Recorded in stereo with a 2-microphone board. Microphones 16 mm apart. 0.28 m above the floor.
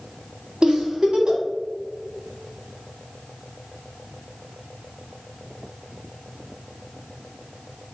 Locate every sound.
0.6 s a giggle: 50° right (ahead or behind), 1.2 m